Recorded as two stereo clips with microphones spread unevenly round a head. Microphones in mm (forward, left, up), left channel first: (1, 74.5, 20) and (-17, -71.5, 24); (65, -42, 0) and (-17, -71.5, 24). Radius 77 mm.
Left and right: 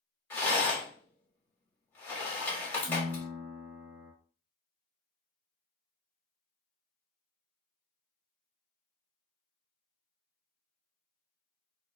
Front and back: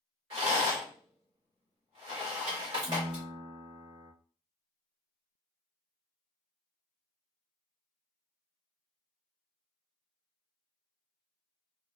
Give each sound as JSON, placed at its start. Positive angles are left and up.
{"t": 0.3, "sound": "a rattle", "azimuth_deg": 160, "distance_m": 1.1}
{"t": 2.9, "sound": "a piano", "azimuth_deg": -115, "distance_m": 0.5}